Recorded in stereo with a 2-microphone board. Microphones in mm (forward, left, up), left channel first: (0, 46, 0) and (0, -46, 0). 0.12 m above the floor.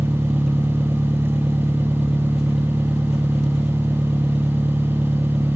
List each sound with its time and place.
0.0 s an engine running: 5° right (ahead or behind), 1.2 m